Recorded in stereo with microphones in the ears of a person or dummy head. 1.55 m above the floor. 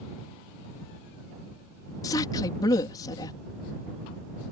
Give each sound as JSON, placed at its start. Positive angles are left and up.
{"t": 2.0, "sound": "a woman speaking", "side_deg": 25}